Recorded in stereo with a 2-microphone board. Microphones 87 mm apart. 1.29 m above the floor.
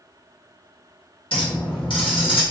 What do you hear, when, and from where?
1.3 s a clink: 75° left (ahead or behind), 1.2 m